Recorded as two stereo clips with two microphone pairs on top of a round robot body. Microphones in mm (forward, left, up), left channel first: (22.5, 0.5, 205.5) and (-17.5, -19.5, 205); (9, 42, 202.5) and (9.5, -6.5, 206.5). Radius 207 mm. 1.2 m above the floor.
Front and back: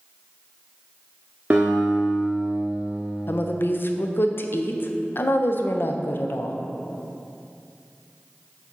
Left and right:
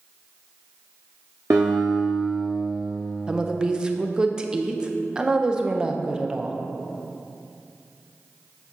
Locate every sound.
1.5 s a guitar: 90° right, 0.8 m
3.3 s a woman speaking: 15° right, 0.7 m